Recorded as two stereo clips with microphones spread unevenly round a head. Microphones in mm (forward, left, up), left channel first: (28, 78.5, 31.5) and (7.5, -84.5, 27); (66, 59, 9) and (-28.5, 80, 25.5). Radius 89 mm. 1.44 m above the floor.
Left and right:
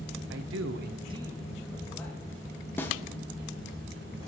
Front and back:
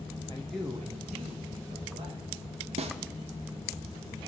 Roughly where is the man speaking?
Right.